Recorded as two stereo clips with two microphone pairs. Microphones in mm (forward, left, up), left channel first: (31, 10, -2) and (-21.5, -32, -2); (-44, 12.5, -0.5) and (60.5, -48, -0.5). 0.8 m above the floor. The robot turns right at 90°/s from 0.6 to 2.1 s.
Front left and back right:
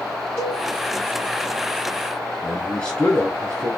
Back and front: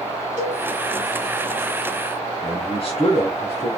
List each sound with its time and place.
0.4 s a cowbell: 10° right, 3.5 m; by 0.6 s 5° right, 3.5 m
2.4 s a man speaking: 115° left, 1.4 m